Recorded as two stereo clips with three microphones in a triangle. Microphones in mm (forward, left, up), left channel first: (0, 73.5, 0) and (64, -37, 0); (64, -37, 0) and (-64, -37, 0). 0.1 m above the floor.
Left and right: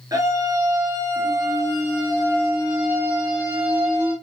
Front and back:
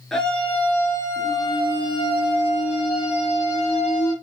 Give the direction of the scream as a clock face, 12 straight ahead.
3 o'clock.